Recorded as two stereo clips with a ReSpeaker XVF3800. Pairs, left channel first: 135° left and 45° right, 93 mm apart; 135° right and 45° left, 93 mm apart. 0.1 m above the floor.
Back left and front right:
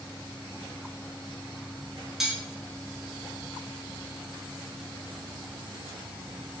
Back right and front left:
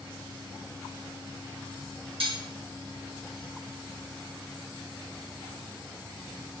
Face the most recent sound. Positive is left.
turn(degrees=40)